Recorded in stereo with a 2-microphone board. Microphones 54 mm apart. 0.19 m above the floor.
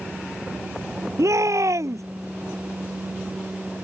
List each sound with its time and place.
1.2 s a shout: 70° right (ahead or behind)